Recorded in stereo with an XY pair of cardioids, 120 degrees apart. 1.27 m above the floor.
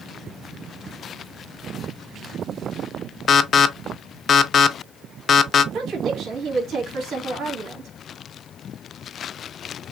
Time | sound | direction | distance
3.3 | an alarm | 40° left | 0.5 m
5.7 | a woman speaking | 60° right | 2 m